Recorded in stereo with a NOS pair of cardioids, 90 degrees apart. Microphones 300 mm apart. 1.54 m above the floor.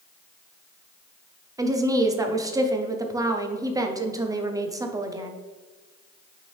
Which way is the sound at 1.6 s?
10° right.